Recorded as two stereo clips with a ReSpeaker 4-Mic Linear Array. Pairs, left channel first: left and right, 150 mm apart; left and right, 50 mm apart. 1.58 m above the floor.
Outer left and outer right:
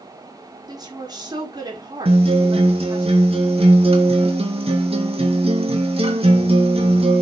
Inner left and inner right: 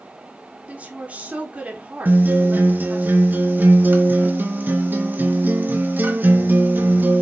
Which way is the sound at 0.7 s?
30° right (ahead or behind).